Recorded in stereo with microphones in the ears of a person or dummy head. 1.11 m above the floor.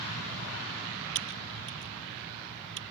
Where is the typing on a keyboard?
65° right (ahead or behind).